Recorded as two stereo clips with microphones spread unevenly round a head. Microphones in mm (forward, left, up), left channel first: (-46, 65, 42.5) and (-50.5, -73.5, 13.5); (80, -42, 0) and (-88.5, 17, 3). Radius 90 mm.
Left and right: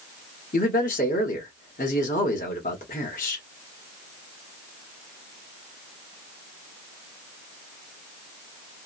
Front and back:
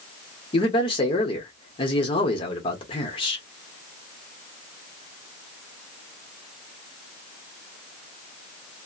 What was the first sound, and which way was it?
A man speaking, 45° left.